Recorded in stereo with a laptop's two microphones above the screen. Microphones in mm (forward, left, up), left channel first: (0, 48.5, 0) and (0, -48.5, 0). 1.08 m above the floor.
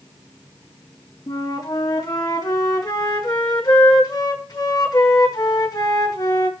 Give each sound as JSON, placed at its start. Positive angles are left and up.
{"t": 1.3, "sound": "a flute", "side_deg": 40, "distance_m": 2.0}